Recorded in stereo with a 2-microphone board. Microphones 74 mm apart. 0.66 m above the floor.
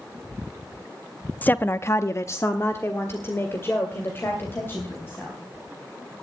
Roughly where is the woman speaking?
Left.